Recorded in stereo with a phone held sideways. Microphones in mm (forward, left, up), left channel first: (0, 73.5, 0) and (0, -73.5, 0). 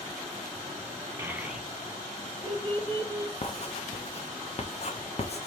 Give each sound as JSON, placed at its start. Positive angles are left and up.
{"t": 1.2, "sound": "a child speaking", "side_deg": -15, "distance_m": 0.9}
{"t": 3.4, "sound": "writing", "side_deg": 45, "distance_m": 0.8}